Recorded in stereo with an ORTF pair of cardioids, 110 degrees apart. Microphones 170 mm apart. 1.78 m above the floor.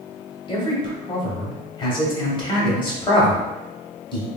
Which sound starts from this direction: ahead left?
A man speaking, at 0.5 s.